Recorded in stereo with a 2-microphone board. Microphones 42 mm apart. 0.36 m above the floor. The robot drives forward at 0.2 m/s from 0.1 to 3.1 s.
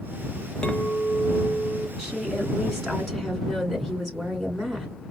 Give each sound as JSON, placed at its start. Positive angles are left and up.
{"t": 0.6, "sound": "a clink", "side_deg": 25, "distance_m": 0.9}
{"t": 2.0, "sound": "a woman speaking", "side_deg": 5, "distance_m": 3.0}